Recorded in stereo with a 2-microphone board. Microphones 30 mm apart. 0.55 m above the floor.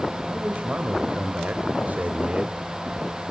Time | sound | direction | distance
0.3 | a man speaking | 50° right (ahead or behind) | 3 m